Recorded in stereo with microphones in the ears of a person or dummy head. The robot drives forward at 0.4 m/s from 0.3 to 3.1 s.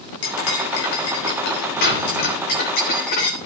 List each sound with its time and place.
0.2 s cutlery clinking: 60° left (ahead or behind), 3 m; by 3.4 s 45° left (ahead or behind), 3.5 m